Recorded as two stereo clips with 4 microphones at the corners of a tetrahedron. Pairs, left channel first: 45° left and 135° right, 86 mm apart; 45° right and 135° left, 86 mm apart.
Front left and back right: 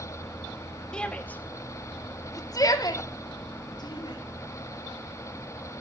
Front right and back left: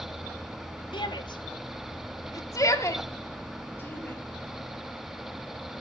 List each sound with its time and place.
0.9 s a shout: 35° right, 2 m; by 4.2 s 20° left, 4 m